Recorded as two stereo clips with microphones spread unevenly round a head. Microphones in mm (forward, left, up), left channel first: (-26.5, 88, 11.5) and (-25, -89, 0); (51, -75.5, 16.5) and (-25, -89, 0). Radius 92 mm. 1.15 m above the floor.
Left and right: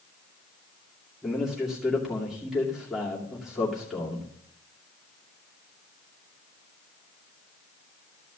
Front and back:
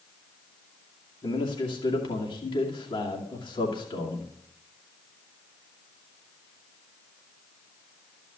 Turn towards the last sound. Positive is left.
turn(degrees=0)